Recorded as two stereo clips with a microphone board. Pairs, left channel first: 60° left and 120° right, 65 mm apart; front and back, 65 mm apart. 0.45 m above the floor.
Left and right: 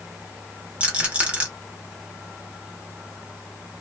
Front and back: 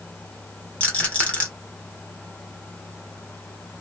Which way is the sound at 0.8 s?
60° right.